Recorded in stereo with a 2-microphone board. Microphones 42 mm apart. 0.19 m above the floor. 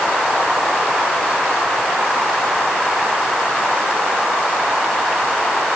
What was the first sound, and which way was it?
Only background noise.